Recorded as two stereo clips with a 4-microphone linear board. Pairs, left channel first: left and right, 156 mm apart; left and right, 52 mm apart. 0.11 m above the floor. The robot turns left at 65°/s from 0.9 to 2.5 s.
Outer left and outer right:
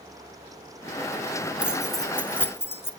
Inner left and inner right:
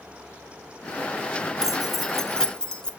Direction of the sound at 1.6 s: 10° right (ahead or behind).